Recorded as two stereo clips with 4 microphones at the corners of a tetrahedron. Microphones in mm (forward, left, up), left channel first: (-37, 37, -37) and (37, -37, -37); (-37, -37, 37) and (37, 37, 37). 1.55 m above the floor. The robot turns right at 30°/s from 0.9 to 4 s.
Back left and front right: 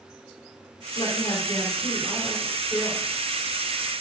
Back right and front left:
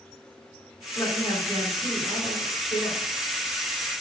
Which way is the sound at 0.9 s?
150° left.